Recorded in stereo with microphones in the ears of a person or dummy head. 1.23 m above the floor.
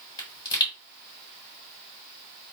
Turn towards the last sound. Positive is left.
turn(degrees=20)  # may be behind; listen again after turning